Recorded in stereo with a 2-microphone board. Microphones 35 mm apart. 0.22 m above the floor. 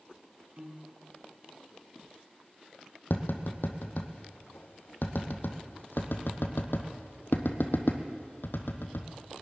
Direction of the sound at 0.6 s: 50° right (ahead or behind).